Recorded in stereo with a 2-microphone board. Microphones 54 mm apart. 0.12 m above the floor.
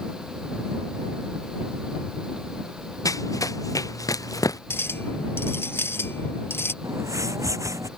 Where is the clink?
40° left (ahead or behind).